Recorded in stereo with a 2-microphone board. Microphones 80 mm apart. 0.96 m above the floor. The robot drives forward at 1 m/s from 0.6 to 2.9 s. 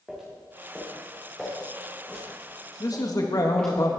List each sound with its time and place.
0.1 s footsteps: centre (ahead or behind), 5 m; by 3.8 s 10° left (ahead or behind), 5.5 m
2.8 s a man speaking: 50° left (ahead or behind), 1.6 m